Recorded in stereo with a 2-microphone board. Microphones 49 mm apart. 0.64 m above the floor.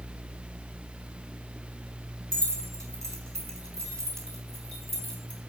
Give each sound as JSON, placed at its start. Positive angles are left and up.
{"t": 2.3, "sound": "keys jangling", "side_deg": -80, "distance_m": 4.0}